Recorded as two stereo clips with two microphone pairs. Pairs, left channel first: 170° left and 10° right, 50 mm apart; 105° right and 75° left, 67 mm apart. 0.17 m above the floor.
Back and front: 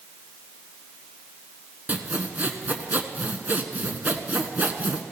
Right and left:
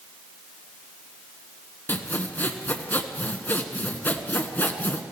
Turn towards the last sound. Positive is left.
turn(degrees=-55)